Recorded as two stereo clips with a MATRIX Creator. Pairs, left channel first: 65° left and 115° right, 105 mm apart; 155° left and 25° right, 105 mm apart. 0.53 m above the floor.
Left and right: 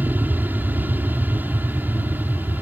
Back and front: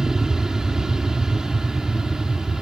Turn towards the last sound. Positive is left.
turn(degrees=-95)